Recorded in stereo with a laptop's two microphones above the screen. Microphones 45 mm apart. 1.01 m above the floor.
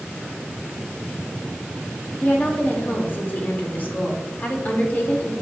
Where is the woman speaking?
45° left (ahead or behind), 2.5 m.